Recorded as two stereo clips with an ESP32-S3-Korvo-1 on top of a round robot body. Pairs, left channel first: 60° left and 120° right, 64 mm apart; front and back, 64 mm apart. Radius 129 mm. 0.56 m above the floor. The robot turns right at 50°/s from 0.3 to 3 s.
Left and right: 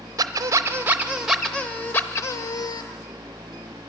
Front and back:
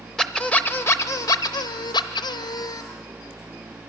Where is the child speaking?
I don't hear a child speaking.